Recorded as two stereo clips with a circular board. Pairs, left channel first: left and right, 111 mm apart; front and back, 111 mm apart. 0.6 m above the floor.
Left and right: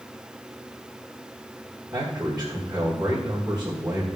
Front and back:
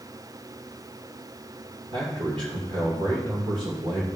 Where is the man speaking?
175° right, 2.5 m.